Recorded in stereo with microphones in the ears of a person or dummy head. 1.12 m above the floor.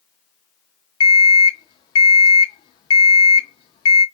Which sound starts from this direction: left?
An alarm clock, at 1.0 s.